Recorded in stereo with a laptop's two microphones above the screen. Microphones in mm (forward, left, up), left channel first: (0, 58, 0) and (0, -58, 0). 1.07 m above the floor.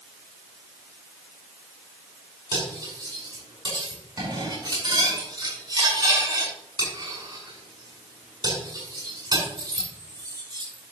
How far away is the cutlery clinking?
About 6.5 m.